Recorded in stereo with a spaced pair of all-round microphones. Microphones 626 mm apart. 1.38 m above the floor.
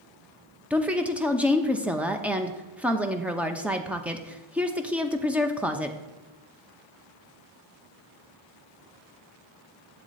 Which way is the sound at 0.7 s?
Centre (ahead or behind).